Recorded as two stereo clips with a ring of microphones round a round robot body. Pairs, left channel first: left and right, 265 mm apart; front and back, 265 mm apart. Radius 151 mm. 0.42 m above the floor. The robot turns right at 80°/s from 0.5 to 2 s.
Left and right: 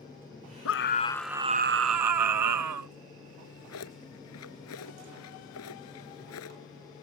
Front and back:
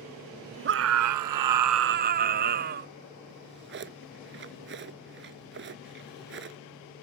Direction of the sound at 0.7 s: 130° left.